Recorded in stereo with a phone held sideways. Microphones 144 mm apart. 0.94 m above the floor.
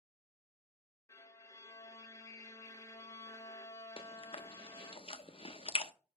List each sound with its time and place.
1.1 s a violin: 20° left (ahead or behind), 0.6 m
4.0 s chewing: 40° left (ahead or behind), 0.6 m